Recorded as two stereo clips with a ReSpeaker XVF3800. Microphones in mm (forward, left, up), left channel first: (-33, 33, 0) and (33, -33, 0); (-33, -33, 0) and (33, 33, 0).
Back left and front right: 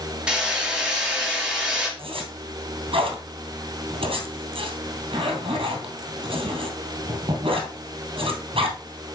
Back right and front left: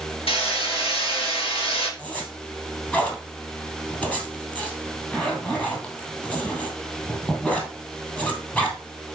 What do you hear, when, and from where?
0.3 s hammering: 125° right, 4 m
2.0 s a zipper: 60° right, 2.5 m